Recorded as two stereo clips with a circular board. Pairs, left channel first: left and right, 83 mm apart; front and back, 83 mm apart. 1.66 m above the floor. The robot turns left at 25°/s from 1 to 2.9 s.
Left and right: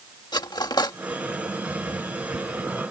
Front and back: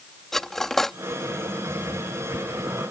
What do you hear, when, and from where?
0.3 s cutlery clinking: 85° left